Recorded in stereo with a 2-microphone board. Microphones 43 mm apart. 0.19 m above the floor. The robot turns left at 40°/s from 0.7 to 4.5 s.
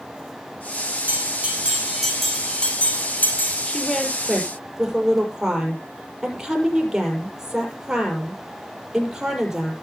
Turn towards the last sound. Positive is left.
turn(degrees=-10)